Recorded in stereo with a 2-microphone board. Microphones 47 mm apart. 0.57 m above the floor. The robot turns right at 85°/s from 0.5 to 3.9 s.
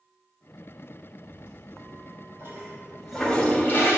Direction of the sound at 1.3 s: 20° right (ahead or behind).